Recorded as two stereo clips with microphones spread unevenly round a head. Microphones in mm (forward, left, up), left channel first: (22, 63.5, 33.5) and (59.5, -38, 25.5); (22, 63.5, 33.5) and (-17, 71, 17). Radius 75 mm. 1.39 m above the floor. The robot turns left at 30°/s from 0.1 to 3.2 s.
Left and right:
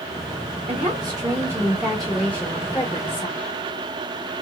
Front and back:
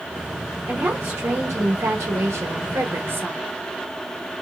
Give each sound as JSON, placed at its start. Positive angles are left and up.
{"t": 0.7, "sound": "a woman speaking", "azimuth_deg": -120, "distance_m": 1.4}